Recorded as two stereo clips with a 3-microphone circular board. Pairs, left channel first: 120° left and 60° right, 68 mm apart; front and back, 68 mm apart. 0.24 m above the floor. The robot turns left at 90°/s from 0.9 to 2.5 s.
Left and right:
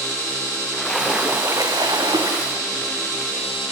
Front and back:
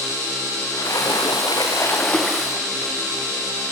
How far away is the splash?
About 7 m.